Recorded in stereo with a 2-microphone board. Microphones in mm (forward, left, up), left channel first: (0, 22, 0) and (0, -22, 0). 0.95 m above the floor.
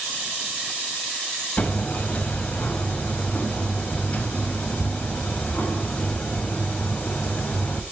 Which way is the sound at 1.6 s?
35° left (ahead or behind).